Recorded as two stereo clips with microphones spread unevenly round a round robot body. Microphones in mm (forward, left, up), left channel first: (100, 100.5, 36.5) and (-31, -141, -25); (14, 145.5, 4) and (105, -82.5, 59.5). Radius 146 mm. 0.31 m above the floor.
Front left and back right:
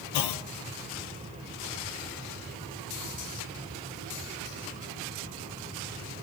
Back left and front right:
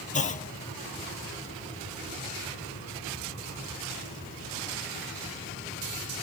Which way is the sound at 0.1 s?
60° left.